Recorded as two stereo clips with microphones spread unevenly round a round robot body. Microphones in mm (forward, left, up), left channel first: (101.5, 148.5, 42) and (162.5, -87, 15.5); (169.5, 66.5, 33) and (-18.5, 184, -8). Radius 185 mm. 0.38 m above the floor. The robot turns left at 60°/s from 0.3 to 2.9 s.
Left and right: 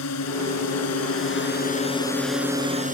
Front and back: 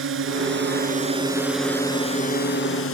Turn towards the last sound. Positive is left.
turn(degrees=-20)